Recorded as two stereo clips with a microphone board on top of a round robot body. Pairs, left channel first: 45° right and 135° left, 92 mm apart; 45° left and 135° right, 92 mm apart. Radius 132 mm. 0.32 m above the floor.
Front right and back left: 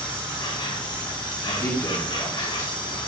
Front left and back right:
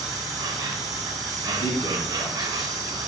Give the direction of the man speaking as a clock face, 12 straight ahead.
12 o'clock.